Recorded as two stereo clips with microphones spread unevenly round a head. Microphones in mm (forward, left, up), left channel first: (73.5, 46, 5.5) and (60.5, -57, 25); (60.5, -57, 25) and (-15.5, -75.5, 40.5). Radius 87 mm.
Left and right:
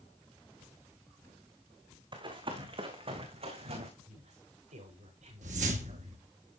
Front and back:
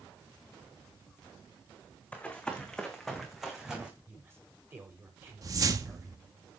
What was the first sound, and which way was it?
Running footsteps, 65° right.